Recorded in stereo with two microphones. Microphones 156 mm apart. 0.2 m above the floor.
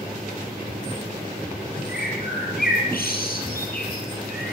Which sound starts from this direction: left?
A bird, at 1.9 s.